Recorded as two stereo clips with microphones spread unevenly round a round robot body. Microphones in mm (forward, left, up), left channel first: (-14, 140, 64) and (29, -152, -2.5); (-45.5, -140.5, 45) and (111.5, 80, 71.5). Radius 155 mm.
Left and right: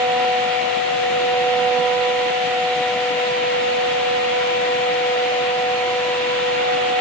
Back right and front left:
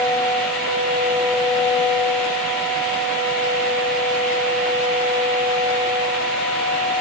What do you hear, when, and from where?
Only background noise.